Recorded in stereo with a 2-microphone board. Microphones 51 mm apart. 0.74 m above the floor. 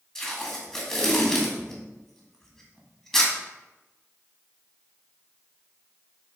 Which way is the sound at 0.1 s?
10° left (ahead or behind).